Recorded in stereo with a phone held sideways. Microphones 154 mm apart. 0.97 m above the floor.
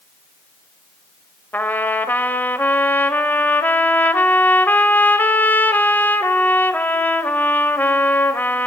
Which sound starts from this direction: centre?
A trumpet, at 1.5 s.